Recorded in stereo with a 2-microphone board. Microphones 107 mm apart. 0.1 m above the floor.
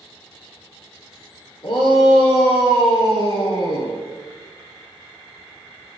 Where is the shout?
45° left (ahead or behind), 2 m.